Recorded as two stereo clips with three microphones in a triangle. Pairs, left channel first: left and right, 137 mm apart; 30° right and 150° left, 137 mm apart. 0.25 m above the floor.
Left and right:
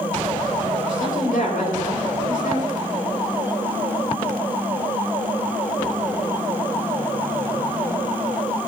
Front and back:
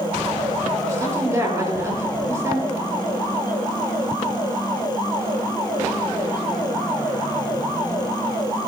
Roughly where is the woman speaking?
Left.